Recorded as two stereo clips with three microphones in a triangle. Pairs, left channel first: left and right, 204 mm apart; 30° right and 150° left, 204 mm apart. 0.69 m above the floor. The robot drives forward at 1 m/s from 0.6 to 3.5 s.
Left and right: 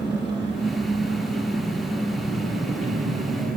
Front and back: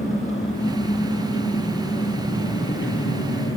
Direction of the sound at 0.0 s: 25° right.